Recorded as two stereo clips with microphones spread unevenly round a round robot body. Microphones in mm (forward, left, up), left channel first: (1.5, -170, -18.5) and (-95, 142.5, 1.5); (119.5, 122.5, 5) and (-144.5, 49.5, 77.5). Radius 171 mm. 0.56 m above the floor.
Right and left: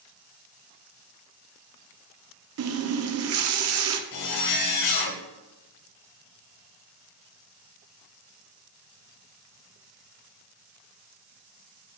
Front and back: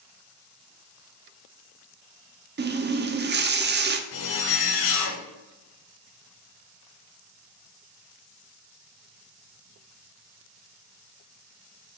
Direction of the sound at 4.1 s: 30° right.